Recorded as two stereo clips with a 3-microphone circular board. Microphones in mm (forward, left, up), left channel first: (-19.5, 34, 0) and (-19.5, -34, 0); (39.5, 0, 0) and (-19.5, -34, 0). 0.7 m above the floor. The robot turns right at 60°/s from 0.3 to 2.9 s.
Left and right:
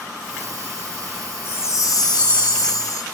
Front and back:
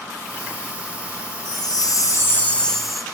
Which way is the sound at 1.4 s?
35° left.